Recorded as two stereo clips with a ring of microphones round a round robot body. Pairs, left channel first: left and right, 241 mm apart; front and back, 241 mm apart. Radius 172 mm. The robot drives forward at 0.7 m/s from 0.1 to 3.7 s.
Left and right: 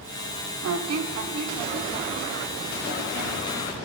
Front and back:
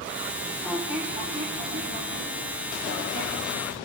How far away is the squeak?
About 1.1 m.